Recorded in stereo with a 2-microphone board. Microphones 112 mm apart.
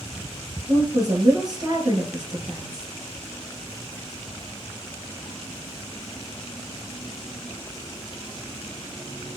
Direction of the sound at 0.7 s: 35° right (ahead or behind).